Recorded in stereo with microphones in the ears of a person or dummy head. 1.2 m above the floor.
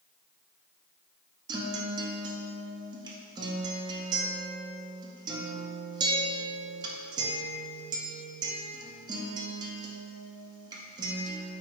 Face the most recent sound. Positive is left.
turn(degrees=-25)  # may be behind; listen again after turning